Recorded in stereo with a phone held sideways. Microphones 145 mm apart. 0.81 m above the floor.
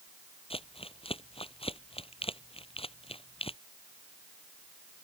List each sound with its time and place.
0.5 s crumpling: 40° left (ahead or behind)